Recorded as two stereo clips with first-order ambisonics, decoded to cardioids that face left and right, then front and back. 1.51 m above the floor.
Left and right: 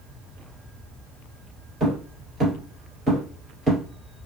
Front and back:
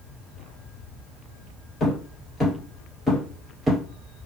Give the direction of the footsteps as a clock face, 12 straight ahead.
1 o'clock.